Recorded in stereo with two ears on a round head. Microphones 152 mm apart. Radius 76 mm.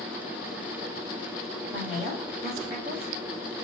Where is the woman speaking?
45° right (ahead or behind), 1.2 m.